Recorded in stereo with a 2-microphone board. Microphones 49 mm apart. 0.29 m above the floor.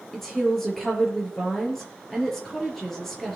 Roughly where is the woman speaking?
Centre.